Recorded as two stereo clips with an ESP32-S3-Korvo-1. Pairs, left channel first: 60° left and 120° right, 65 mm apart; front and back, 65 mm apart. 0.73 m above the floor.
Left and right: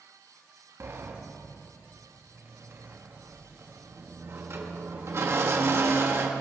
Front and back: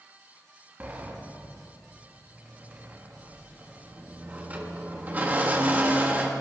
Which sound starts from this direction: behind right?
A sliding door, at 0.8 s.